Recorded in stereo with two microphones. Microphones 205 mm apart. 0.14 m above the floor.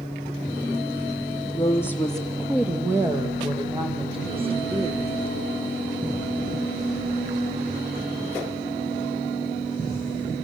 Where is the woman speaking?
20° left (ahead or behind), 2.5 m; by 5.1 s 30° right (ahead or behind), 6.5 m.